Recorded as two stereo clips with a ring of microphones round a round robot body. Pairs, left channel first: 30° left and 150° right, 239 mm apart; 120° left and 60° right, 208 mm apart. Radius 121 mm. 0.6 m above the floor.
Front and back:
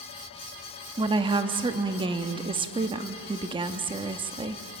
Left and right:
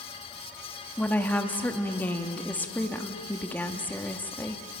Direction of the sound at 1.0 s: 170° right.